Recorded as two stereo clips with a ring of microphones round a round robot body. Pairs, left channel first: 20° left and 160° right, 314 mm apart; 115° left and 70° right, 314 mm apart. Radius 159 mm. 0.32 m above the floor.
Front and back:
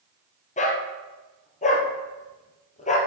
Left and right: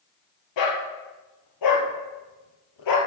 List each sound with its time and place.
0.6 s a dog barking: 90° left, 2 m